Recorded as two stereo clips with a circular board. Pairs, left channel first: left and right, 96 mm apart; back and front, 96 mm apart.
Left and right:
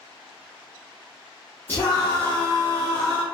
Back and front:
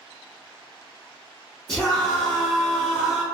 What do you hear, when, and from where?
1.7 s a scream: 110° left, 1.0 m